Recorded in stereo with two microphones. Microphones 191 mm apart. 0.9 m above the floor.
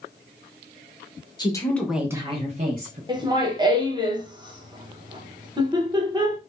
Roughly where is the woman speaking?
Left.